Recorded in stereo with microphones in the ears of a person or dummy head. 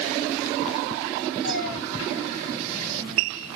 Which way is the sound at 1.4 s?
75° right (ahead or behind).